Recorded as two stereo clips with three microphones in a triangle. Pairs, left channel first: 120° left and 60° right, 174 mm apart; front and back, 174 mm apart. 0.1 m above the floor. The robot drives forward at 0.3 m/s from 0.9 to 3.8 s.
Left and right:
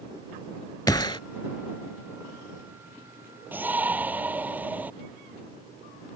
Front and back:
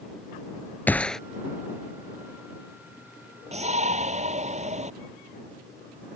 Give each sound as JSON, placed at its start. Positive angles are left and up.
{"t": 0.9, "sound": "a gunshot", "azimuth_deg": 70}
{"t": 3.5, "sound": "a shout", "azimuth_deg": -135}